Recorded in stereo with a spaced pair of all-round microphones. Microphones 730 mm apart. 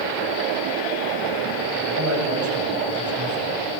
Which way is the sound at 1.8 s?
20° right (ahead or behind).